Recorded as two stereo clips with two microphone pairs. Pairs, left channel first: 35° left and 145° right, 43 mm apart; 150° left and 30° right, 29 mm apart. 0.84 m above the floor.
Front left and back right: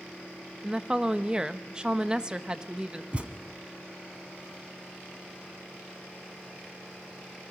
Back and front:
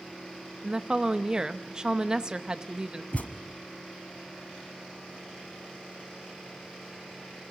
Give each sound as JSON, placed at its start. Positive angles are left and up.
{"t": 0.6, "sound": "a woman speaking", "azimuth_deg": -80, "distance_m": 0.8}
{"t": 3.1, "sound": "a thud", "azimuth_deg": 160, "distance_m": 1.3}